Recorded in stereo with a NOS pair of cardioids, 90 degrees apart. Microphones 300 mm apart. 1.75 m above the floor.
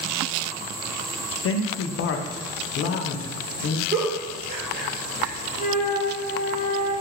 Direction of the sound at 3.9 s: 30° right.